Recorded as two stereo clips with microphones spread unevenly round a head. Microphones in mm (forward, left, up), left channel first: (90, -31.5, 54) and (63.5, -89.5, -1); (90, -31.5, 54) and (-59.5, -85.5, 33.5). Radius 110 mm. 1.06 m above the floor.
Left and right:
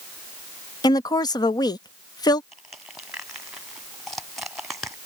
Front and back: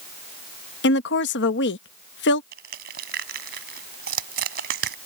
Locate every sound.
0.8 s a woman speaking: 35° left
2.5 s crushing: 160° left